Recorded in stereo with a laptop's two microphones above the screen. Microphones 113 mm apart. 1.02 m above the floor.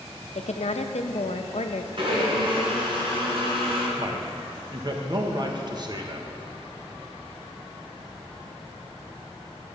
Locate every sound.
0.3 s a woman speaking: 75° left (ahead or behind), 0.7 m
2.0 s a blender: 50° right (ahead or behind), 3.5 m
4.0 s a man speaking: 40° right (ahead or behind), 1.1 m